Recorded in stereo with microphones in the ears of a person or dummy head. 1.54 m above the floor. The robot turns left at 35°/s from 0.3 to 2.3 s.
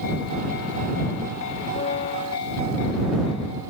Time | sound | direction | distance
1.8 | a piano | 40° left (ahead or behind) | ?